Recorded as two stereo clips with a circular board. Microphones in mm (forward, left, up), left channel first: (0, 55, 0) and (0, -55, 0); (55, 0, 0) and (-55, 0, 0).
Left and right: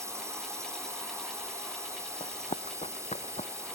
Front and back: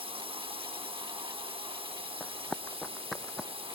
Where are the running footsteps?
75° left; by 3.5 s 90° left.